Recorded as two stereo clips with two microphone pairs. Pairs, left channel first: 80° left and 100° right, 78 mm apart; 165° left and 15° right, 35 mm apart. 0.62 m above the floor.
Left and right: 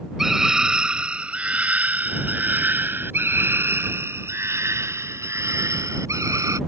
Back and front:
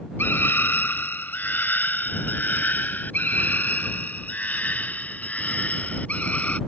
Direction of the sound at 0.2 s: 175° left.